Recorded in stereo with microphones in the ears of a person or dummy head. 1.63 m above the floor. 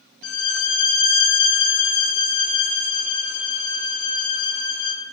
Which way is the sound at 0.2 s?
70° left (ahead or behind).